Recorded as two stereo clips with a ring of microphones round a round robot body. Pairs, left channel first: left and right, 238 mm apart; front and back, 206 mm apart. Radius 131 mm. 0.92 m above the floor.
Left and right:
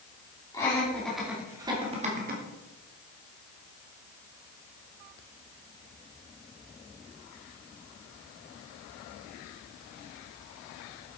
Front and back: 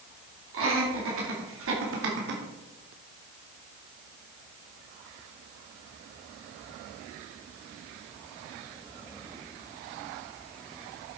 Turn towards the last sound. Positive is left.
turn(degrees=-140)